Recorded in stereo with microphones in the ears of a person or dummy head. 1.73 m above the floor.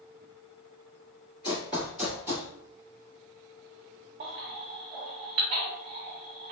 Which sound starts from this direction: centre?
Running footsteps, at 1.4 s.